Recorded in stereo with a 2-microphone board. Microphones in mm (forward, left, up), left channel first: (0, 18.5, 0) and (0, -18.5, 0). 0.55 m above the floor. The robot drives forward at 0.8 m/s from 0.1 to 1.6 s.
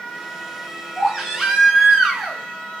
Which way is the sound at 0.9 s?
10° right (ahead or behind).